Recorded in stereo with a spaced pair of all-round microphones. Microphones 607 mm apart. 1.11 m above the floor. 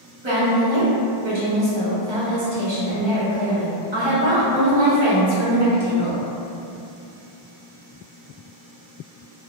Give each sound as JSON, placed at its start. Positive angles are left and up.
{"t": 0.2, "sound": "a woman speaking", "side_deg": -45, "distance_m": 0.9}